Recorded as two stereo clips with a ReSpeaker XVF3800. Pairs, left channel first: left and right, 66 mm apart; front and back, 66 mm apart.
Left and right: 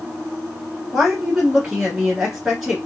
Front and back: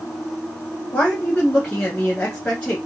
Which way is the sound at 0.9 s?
10° right.